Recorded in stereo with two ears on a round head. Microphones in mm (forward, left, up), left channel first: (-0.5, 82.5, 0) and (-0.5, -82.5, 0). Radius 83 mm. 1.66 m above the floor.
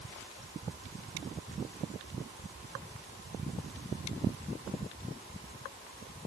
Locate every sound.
Only background noise.